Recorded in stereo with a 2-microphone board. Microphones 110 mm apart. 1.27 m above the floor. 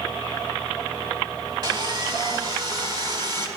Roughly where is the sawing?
Right.